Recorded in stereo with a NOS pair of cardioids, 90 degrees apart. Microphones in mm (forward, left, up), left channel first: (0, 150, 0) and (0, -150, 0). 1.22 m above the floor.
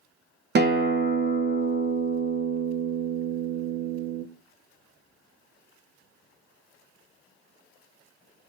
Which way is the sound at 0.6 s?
40° right.